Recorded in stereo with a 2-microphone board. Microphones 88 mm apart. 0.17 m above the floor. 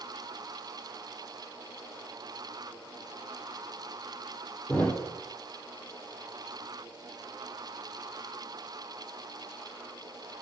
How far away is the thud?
About 0.8 m.